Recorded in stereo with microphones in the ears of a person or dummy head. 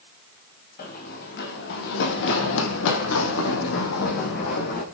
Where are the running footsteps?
50° left (ahead or behind), 4 m.